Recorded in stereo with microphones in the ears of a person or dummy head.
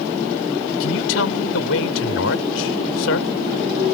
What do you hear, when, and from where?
0.8 s a man speaking: 80° left